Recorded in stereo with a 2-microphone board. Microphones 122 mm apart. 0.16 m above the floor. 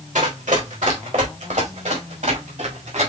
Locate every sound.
0.1 s running footsteps: 90° right, 3.5 m; by 3.1 s 80° right, 5 m